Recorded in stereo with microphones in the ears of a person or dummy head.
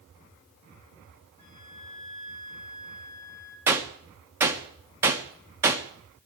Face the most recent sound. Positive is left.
turn(degrees=-15)  # may be behind; listen again after turning